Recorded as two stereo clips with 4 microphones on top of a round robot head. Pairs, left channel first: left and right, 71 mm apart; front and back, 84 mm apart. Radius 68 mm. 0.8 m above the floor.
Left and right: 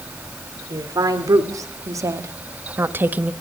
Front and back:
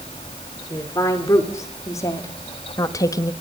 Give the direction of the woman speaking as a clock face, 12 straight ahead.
2 o'clock.